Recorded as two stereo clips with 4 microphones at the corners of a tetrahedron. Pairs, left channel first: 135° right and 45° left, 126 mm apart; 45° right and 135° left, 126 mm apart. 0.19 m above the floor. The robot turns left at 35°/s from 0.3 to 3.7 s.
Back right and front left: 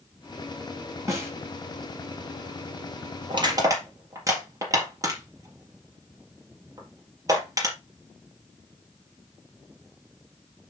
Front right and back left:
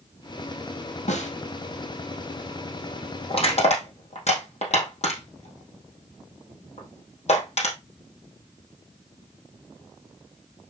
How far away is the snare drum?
About 4 m.